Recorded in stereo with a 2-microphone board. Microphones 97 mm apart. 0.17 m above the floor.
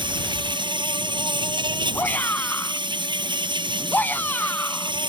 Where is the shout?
20° left (ahead or behind).